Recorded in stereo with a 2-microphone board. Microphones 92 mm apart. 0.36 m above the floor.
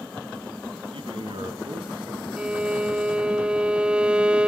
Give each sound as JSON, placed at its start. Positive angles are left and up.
{"t": 0.9, "sound": "a man speaking", "side_deg": -70, "distance_m": 3.0}
{"t": 2.4, "sound": "a violin", "side_deg": -10, "distance_m": 0.6}